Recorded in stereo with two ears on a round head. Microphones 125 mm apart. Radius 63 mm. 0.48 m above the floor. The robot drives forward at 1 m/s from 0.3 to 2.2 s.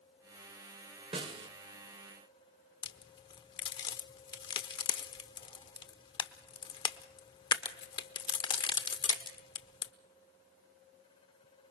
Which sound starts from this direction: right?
A snare drum, at 1.1 s.